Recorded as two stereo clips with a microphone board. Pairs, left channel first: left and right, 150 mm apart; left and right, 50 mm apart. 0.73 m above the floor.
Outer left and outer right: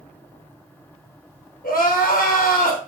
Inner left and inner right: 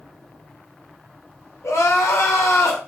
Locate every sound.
1.6 s crying: 70° left (ahead or behind), 0.8 m